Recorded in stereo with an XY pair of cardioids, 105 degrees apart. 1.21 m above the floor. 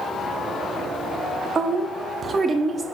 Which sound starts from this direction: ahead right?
A woman speaking, at 1.6 s.